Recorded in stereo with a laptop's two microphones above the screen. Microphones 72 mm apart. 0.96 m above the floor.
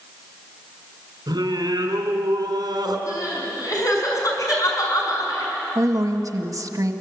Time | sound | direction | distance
1.3 | singing | 75° right (ahead or behind) | 3.5 m
3.1 | crying | 55° left (ahead or behind) | 6 m
5.8 | a woman speaking | 55° right (ahead or behind) | 1.5 m